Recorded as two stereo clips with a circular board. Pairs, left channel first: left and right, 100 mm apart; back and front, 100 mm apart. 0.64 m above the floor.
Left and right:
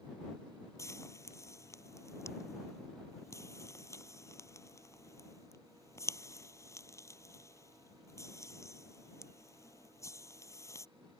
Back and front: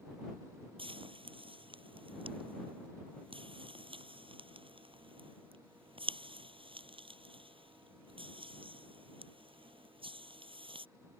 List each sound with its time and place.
0.8 s frying: 30° left